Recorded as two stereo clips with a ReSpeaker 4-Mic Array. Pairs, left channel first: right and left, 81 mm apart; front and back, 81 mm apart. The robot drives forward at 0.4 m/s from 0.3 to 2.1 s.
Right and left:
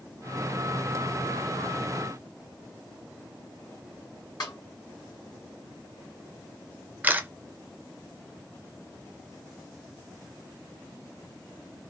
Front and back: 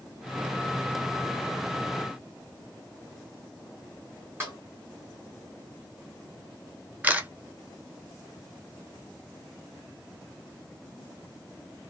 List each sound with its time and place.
4.4 s a snare drum: 125° right, 1.5 m
7.0 s a camera shutter: 135° left, 0.6 m